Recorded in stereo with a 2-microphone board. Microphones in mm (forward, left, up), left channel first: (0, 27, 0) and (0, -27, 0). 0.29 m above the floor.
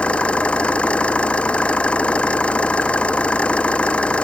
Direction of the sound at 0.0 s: 20° left (ahead or behind).